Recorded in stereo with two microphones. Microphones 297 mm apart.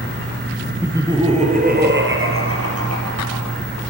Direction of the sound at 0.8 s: 5° right (ahead or behind).